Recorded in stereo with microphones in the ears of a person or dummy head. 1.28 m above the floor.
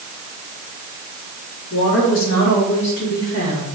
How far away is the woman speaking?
About 3.5 m.